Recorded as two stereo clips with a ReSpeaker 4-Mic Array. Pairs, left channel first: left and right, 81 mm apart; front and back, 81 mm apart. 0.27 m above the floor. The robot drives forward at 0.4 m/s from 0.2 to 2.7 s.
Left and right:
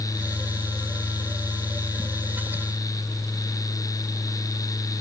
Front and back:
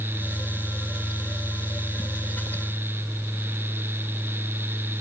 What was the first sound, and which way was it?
Only background noise.